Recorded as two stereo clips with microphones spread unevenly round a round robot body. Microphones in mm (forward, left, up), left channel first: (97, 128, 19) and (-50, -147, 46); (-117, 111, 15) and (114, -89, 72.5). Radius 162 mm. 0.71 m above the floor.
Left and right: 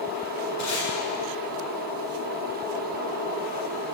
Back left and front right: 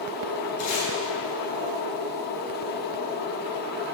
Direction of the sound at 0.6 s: 100° left.